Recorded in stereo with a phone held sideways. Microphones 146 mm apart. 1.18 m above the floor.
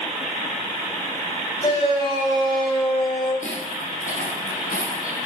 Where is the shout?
35° left (ahead or behind), 6.5 m.